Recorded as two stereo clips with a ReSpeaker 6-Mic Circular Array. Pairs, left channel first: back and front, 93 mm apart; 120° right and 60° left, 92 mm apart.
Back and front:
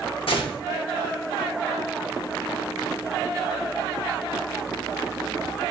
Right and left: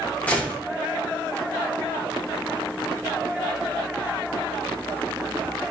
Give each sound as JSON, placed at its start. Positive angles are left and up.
{"t": 0.3, "sound": "a gunshot", "azimuth_deg": 165, "distance_m": 0.8}